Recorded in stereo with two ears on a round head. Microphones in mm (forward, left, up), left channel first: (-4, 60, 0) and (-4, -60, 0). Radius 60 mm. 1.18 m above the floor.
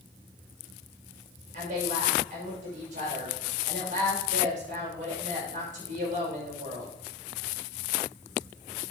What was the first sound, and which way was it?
A woman speaking, 65° right (ahead or behind).